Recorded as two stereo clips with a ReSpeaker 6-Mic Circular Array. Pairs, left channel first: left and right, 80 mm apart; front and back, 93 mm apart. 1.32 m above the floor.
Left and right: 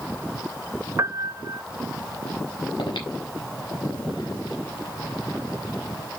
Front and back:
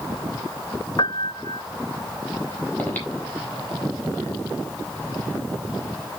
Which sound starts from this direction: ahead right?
A piano, at 1.0 s.